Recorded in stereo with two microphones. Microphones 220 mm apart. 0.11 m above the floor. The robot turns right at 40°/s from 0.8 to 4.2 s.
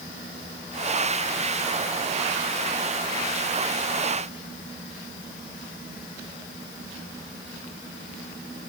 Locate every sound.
Only background noise.